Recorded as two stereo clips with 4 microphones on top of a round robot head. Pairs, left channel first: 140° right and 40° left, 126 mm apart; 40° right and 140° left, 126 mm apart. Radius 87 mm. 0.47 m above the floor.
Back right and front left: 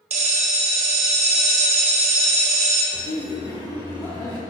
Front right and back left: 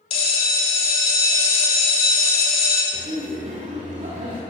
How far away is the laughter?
About 1.6 m.